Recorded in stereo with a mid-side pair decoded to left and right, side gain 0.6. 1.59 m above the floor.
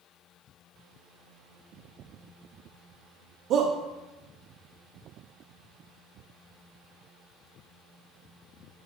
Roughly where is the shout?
Ahead right.